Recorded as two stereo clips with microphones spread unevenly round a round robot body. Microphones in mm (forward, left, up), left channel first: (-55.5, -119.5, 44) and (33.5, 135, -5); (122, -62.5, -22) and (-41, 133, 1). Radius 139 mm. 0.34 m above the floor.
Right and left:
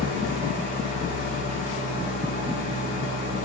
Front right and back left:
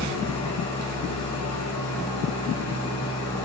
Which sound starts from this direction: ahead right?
An engine running, at 0.0 s.